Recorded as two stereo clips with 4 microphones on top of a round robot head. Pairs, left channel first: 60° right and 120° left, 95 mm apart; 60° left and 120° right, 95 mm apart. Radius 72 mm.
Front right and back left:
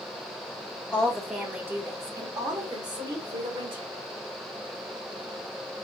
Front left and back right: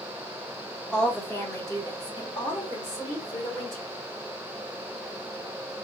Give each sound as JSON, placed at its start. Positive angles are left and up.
{"t": 0.9, "sound": "a woman speaking", "azimuth_deg": -10, "distance_m": 1.1}